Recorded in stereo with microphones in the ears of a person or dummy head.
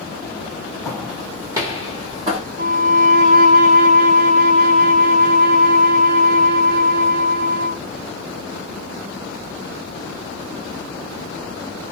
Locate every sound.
0.8 s footsteps: centre (ahead or behind), 2.5 m; by 2.4 s 30° right (ahead or behind), 2.5 m
2.6 s a violin: 70° right (ahead or behind), 3 m